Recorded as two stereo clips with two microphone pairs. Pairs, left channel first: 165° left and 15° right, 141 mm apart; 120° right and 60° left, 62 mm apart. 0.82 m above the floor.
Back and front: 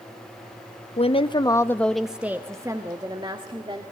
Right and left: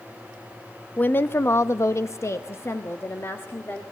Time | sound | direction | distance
1.0 | a woman speaking | 175° right | 1.0 m